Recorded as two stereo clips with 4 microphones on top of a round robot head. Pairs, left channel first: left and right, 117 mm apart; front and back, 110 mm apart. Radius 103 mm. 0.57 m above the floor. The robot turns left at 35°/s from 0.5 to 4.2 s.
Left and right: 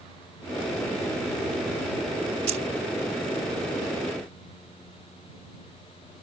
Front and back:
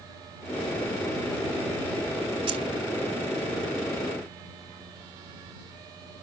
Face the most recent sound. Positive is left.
turn(degrees=170)